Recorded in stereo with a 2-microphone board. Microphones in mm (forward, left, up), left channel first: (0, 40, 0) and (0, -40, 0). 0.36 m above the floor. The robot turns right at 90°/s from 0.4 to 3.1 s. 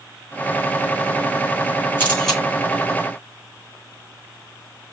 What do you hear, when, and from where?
2.0 s a camera shutter: 30° left (ahead or behind), 4 m; by 2.4 s 5° right (ahead or behind), 4 m